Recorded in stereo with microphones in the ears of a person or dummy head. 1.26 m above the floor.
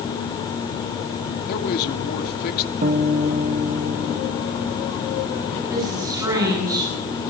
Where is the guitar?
40° right (ahead or behind), 1.1 m.